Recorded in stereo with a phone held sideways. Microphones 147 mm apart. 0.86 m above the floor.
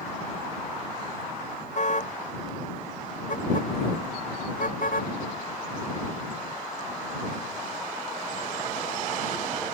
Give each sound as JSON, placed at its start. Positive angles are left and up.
{"t": 1.8, "sound": "a car horn", "side_deg": 55}